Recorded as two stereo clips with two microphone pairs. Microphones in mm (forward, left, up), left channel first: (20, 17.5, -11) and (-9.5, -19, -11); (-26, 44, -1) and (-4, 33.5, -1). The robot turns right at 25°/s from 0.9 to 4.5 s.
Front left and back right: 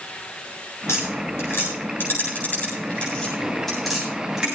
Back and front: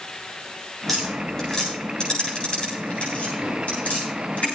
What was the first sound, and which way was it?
Tapping, 65° left.